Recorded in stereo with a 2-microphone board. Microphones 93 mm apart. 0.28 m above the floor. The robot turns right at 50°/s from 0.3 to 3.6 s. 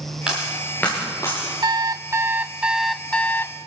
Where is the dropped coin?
10° right (ahead or behind), 9.5 m; by 1.5 s 50° left (ahead or behind), 9.5 m.